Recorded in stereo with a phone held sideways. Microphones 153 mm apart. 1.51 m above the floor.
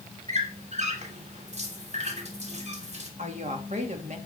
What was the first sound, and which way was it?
A squeak, 45° right (ahead or behind).